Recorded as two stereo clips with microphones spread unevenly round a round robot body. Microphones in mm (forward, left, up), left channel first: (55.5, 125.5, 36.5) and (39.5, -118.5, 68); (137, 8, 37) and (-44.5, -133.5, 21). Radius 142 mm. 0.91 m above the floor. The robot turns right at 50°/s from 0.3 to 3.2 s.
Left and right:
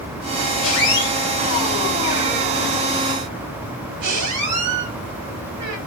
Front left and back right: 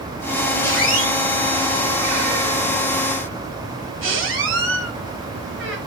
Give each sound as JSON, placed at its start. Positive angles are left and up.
{"t": 0.6, "sound": "a squeak", "azimuth_deg": 115, "distance_m": 3.0}